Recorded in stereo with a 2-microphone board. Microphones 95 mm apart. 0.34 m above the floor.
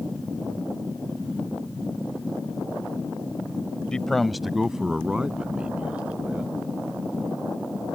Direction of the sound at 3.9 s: 10° left (ahead or behind).